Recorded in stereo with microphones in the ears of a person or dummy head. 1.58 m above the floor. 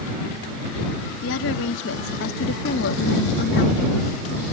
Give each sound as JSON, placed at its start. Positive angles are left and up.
{"t": 1.2, "sound": "a woman speaking", "side_deg": 75}